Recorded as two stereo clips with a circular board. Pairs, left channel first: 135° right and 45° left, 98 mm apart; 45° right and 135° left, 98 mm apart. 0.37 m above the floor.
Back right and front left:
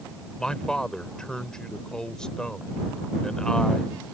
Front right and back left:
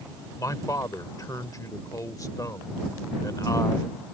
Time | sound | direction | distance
0.4 | a man speaking | 60° right | ?